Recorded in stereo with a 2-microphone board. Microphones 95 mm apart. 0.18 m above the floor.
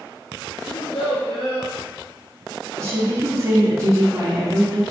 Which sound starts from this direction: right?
A woman speaking, at 2.8 s.